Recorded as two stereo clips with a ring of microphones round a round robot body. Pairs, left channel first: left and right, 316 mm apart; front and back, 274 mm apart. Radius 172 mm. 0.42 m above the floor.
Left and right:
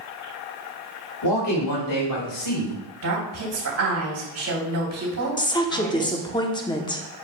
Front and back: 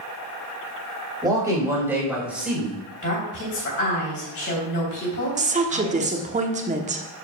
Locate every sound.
1.2 s a man speaking: 105° left, 3.5 m; by 2.8 s 90° left, 3.5 m
3.0 s a woman speaking: 50° right, 3 m
5.4 s a woman speaking: 150° left, 1.0 m